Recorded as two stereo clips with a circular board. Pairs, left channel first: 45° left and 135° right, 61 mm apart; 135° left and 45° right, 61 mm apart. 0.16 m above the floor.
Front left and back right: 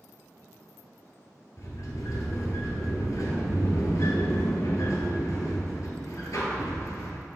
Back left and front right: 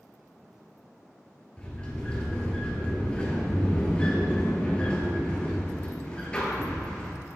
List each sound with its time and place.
1.6 s a sliding door: 65° left, 1.4 m